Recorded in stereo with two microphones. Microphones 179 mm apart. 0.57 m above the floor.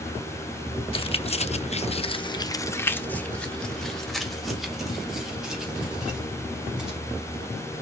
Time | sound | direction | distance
0.9 | keys jangling | 30° left (ahead or behind) | 0.9 m